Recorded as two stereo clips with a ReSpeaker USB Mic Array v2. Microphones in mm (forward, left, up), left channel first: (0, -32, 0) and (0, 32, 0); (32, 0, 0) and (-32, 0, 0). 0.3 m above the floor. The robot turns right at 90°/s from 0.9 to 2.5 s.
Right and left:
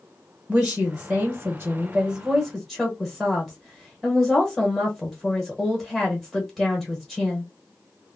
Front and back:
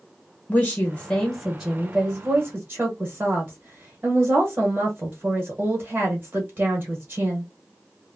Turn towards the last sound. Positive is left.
turn(degrees=175)